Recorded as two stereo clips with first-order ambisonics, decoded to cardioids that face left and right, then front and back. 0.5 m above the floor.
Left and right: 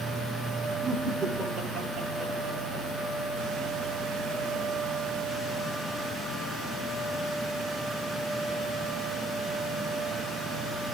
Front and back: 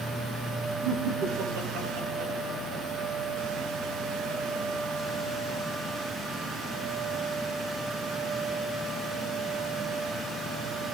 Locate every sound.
0.8 s laughter: 165° right, 7.5 m